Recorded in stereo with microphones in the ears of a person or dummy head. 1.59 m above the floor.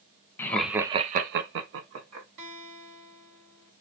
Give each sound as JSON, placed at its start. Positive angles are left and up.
{"t": 0.4, "sound": "laughter", "side_deg": 15, "distance_m": 0.9}
{"t": 2.4, "sound": "a guitar", "side_deg": -60, "distance_m": 2.0}